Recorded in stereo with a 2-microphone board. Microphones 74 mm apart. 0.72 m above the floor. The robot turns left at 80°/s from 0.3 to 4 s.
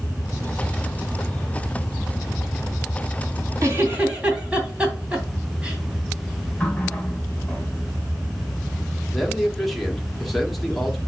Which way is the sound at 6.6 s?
15° left (ahead or behind).